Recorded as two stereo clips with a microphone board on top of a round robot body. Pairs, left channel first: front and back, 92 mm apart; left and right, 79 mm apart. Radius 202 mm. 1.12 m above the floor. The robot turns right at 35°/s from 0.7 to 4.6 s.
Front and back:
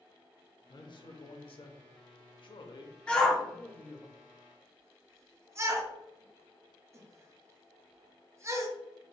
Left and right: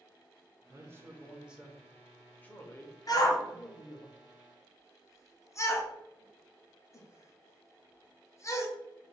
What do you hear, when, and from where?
0.7 s a man speaking: 40° right, 0.7 m; by 4.1 s 80° left, 0.7 m
3.1 s a shout: 75° left, 0.9 m; by 8.7 s 130° left, 0.9 m